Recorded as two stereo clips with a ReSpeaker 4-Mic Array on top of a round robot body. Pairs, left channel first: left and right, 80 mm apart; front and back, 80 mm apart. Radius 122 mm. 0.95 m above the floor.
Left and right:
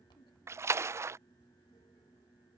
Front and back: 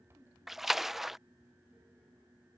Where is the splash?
95° right.